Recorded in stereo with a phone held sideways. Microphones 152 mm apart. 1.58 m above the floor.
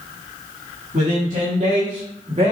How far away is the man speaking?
About 3.5 m.